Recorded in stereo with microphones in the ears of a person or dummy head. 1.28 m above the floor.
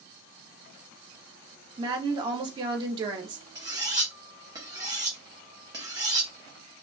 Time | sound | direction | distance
1.8 | a woman speaking | 20° right (ahead or behind) | 0.6 m
3.5 | cutlery clinking | 25° right (ahead or behind) | 0.8 m